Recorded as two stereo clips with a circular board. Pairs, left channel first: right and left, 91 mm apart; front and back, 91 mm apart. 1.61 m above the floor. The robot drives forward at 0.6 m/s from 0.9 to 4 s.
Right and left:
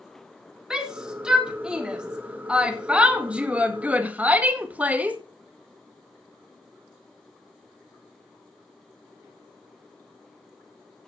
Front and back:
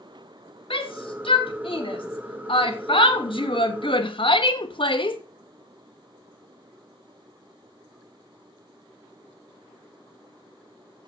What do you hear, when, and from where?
0.7 s a shout: 10° left, 4 m; by 5.2 s 15° left, 2.0 m